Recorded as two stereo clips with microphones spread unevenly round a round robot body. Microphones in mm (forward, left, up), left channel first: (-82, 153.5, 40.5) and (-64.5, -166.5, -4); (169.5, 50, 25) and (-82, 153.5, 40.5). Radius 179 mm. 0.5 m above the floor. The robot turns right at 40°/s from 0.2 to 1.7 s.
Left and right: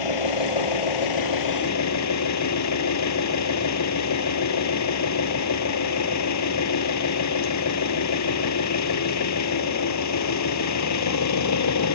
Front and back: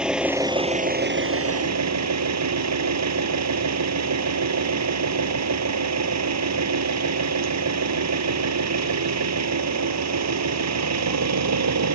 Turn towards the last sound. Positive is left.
turn(degrees=130)